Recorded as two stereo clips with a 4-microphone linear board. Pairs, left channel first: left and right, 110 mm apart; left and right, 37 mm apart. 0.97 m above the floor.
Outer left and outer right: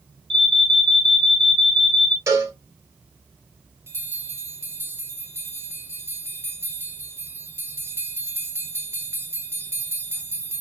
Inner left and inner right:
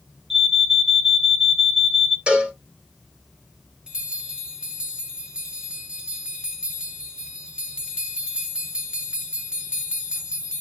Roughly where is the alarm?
Centre.